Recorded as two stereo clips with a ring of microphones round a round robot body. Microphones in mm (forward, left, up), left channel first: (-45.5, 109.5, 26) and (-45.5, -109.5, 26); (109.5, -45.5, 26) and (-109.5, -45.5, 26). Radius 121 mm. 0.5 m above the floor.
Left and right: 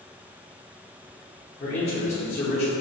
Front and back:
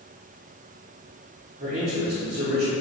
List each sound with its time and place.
1.6 s a man speaking: 135° left, 1.2 m